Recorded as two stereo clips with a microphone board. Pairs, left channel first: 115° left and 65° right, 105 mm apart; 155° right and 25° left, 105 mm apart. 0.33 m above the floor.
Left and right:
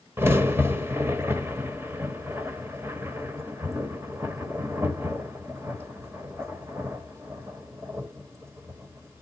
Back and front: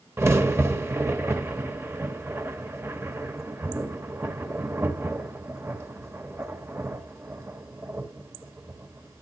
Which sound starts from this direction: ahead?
A crack, at 0.2 s.